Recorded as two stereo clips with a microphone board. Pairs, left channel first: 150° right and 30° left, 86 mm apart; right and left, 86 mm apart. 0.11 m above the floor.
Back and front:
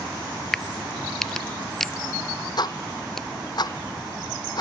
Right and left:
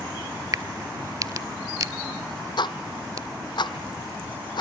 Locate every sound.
0.5 s a crack: 125° left, 0.5 m
2.6 s ticking: 115° right, 1.2 m